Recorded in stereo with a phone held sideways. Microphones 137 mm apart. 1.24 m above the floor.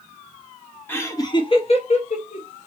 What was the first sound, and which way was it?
Laughter, 15° left (ahead or behind).